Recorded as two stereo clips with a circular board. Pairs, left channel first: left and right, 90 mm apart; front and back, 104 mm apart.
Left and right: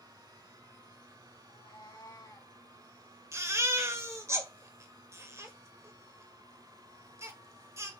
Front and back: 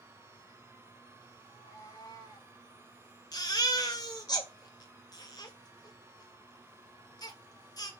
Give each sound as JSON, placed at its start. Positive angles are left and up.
{"t": 1.4, "sound": "a cat meowing", "azimuth_deg": 60, "distance_m": 4.0}
{"t": 3.3, "sound": "a baby crying", "azimuth_deg": -40, "distance_m": 1.9}